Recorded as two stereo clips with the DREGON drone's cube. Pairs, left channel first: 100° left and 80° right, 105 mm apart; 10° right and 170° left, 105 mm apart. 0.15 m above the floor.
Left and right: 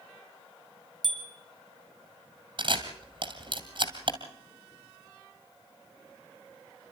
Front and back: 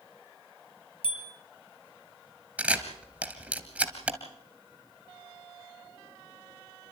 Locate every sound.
1.0 s a bicycle bell: 15° left, 3 m
2.6 s a camera shutter: 115° right, 2.5 m